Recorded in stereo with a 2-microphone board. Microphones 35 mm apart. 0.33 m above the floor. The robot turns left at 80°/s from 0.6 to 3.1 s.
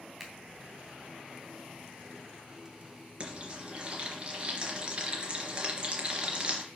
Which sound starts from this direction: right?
Frying, at 3.2 s.